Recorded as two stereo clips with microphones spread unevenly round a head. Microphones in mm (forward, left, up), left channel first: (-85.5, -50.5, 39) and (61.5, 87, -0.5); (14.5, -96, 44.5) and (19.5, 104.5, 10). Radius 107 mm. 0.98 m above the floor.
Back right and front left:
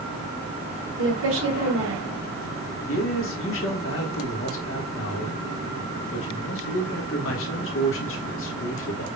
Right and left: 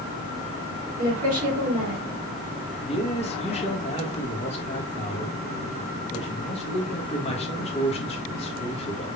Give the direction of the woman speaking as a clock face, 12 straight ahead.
11 o'clock.